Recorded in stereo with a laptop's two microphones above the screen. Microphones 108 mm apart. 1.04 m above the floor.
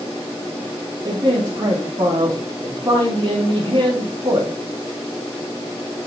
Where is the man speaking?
45° right (ahead or behind), 2.5 m.